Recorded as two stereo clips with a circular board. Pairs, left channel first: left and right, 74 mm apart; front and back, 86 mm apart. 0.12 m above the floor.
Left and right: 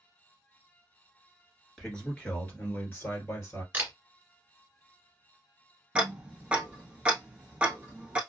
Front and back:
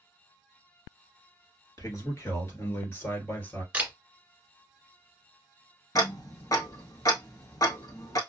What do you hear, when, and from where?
1.8 s a man speaking: 15° left, 1.8 m; by 3.6 s 60° left, 1.9 m
3.7 s a camera shutter: 125° right, 1.8 m
6.0 s ticking: 20° right, 0.8 m